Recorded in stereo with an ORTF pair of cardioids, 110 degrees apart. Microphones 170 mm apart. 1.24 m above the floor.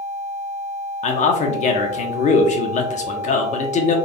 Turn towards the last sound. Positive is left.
turn(degrees=45)